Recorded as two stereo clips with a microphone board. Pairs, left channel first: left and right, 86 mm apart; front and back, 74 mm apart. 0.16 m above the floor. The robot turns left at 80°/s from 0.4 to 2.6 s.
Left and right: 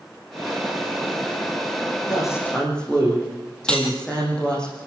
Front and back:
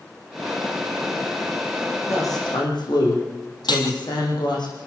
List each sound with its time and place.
2.1 s a woman speaking: 50° left, 8 m; by 4.7 s 10° left, 8 m
3.7 s cutlery clinking: 10° left, 3.5 m